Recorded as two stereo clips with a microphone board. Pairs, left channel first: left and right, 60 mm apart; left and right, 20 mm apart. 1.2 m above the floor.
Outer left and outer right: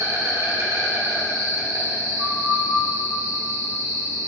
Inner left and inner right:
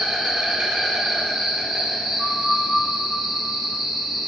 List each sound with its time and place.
0.0 s an insect: 70° right (ahead or behind), 1.8 m
2.2 s a flute: 75° right (ahead or behind), 1.5 m